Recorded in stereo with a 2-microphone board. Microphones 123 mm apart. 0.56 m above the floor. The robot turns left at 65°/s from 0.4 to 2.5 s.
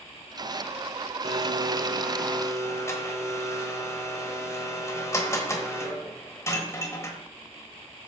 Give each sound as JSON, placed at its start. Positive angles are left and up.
{"t": 1.2, "sound": "a blender", "azimuth_deg": -125, "distance_m": 1.3}